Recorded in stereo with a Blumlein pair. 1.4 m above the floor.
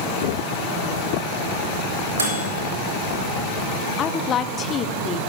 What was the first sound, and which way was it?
A microwave, 70° right.